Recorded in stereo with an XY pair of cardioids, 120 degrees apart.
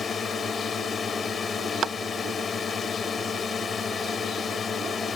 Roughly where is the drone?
Ahead left.